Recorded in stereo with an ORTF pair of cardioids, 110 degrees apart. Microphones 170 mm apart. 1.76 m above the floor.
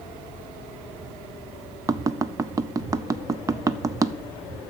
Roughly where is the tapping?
Ahead.